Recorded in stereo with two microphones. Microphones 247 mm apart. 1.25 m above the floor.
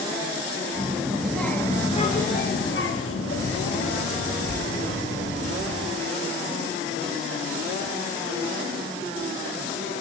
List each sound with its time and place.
0.8 s a child speaking: 15° right (ahead or behind), 1.1 m; by 5.8 s 75° left (ahead or behind), 2.5 m